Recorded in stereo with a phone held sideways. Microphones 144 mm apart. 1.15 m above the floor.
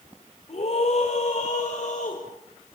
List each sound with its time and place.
0.5 s a scream: 45° left (ahead or behind), 5 m; by 2.2 s 55° left (ahead or behind), 5.5 m